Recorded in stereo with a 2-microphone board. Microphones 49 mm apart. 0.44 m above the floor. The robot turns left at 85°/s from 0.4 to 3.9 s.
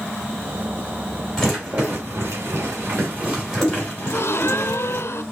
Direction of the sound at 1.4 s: 10° left (ahead or behind).